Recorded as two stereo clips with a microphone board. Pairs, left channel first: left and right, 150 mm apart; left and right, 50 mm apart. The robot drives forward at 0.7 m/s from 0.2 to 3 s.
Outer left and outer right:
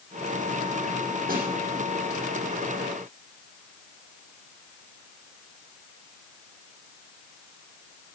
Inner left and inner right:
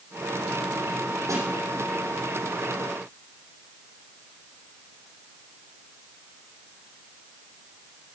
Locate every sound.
1.3 s a snare drum: 85° right, 6 m